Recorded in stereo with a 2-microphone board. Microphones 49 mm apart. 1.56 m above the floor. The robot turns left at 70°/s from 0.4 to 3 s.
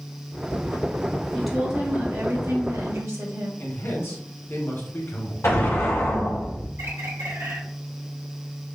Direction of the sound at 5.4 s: 70° left (ahead or behind).